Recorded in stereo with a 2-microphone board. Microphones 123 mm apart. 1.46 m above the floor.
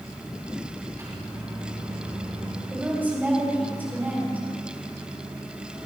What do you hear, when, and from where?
1.0 s a microwave: 30° right (ahead or behind), 6 m
2.7 s a woman speaking: 15° right (ahead or behind), 4.5 m